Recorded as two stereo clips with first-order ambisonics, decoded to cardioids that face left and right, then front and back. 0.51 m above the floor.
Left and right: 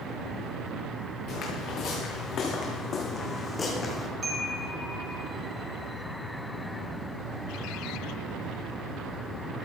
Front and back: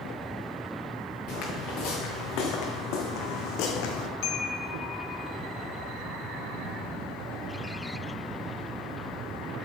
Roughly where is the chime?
Ahead.